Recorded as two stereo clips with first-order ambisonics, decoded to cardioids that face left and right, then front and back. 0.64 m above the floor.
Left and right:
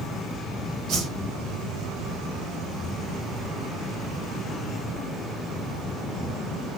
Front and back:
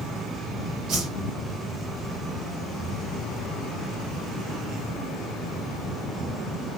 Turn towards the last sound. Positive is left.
turn(degrees=-135)